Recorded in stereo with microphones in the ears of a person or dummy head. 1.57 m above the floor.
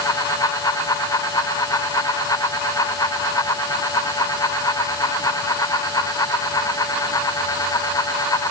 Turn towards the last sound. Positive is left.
No sound to turn to.